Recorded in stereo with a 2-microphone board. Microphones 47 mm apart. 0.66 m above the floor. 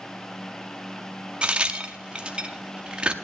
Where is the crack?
20° right (ahead or behind), 0.7 m.